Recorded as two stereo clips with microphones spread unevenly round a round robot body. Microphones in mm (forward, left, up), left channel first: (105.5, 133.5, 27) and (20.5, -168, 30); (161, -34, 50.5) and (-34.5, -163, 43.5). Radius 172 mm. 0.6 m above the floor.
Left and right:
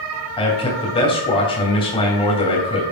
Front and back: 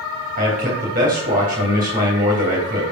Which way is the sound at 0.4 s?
150° left.